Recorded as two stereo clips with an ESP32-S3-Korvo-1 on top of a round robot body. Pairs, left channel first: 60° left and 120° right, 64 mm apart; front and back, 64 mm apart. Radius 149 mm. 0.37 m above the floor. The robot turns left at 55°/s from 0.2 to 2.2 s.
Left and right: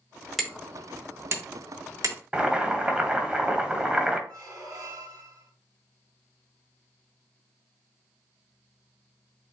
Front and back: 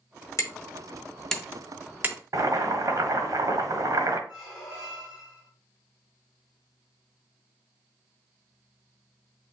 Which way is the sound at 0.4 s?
30° right.